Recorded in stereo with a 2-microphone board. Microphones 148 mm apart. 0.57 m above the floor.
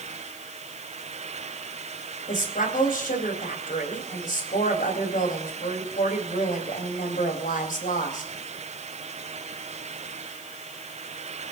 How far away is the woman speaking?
About 3.5 m.